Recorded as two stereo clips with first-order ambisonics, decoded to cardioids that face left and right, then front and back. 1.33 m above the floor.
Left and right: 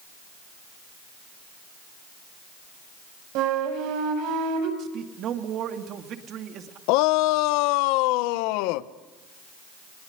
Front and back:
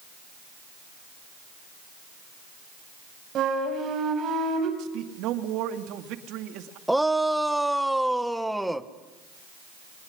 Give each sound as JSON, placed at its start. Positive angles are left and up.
{"t": 3.4, "sound": "a flute", "azimuth_deg": -120, "distance_m": 6.0}
{"t": 4.8, "sound": "a man speaking", "azimuth_deg": -140, "distance_m": 2.5}
{"t": 6.9, "sound": "a shout", "azimuth_deg": 90, "distance_m": 1.2}